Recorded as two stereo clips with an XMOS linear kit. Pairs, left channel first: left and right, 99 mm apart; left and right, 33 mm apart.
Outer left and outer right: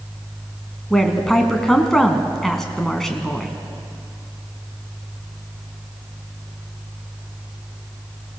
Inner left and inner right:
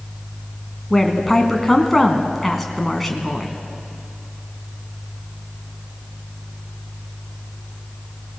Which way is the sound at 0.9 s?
5° left (ahead or behind).